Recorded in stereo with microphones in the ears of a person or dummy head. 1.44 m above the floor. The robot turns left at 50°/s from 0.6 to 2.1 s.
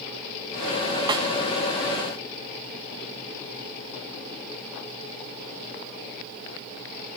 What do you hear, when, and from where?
1.1 s a snare drum: 25° right (ahead or behind), 1.1 m; by 1.3 s 20° right (ahead or behind), 1.1 m